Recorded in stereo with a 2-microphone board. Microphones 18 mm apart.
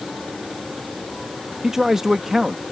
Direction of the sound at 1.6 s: 20° right (ahead or behind).